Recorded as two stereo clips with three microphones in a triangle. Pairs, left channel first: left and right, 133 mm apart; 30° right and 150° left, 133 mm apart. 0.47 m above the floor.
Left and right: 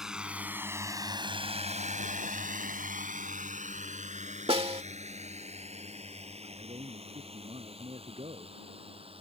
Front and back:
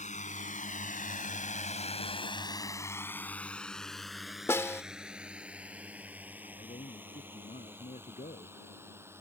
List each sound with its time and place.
0.0 s a drone: 5° right; by 9.2 s 140° right
4.5 s a snare drum: 95° right
6.4 s a man speaking: 50° right